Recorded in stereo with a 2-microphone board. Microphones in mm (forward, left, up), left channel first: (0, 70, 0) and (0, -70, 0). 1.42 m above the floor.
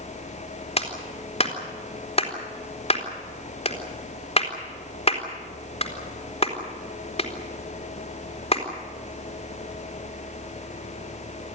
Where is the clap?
45° left (ahead or behind), 4 m.